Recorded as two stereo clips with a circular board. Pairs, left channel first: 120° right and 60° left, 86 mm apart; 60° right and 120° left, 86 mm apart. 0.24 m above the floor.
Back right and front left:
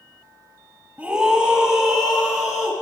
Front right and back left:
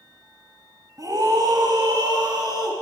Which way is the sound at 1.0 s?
130° left.